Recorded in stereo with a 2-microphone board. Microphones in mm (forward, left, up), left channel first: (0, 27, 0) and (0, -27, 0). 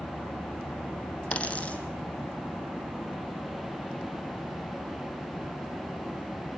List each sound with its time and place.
1.3 s a dropped coin: 25° left (ahead or behind), 2.5 m